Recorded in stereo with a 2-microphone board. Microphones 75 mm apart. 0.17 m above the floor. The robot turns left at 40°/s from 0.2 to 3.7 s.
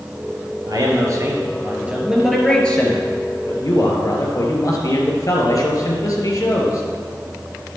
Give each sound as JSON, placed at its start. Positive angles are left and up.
{"t": 0.7, "sound": "a man speaking", "azimuth_deg": -110, "distance_m": 3.0}